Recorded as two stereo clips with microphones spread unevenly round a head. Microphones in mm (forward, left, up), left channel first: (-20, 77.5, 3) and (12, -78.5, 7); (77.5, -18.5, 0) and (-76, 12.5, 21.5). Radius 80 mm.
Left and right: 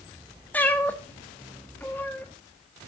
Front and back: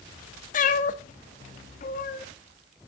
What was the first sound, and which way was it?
A cat meowing, 25° left.